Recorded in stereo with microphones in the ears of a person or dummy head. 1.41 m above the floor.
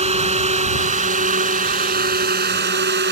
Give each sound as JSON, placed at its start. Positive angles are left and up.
{"t": 0.0, "sound": "a drone", "side_deg": -30}